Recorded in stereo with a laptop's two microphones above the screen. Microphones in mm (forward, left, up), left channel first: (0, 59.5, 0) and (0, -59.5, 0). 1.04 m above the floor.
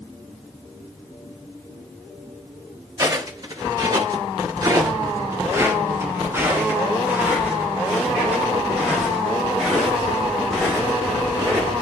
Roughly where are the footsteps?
Right.